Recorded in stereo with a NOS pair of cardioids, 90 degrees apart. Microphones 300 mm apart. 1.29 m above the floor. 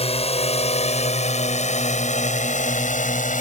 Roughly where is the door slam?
I don't hear a door slam.